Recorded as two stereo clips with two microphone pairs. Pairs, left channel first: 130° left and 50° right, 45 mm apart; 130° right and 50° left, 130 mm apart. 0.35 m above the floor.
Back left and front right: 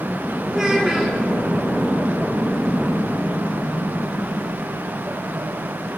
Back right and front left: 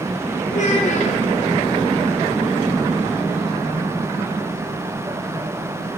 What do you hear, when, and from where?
0.5 s a child speaking: 125° right, 2.5 m